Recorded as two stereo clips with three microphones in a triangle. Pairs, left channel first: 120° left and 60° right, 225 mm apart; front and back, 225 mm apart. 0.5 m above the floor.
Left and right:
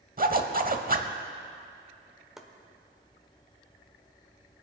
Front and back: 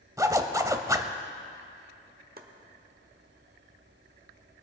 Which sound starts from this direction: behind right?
Chopping, at 2.4 s.